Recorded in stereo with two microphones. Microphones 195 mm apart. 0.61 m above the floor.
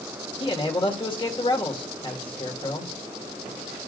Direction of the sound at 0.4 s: 25° left (ahead or behind).